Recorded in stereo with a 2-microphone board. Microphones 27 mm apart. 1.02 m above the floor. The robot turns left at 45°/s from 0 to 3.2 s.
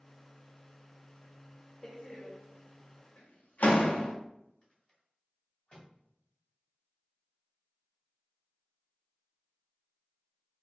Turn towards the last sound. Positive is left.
turn(degrees=40)  # may be behind; listen again after turning